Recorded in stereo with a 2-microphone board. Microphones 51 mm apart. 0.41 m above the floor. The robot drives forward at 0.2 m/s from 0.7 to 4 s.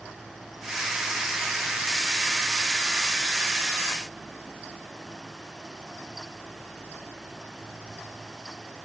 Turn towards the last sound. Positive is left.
No sound to turn to.